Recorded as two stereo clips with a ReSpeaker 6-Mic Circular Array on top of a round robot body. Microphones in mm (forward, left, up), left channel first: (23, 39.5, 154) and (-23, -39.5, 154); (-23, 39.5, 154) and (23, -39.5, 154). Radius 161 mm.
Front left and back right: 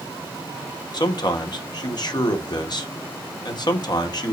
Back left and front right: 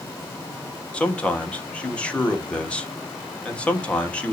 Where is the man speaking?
45° left, 1.4 m.